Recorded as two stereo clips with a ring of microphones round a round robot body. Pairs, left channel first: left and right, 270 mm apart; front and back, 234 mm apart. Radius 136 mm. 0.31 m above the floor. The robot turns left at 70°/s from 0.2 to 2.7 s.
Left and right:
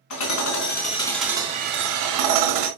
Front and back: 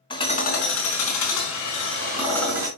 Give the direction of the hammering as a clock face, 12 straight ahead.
10 o'clock.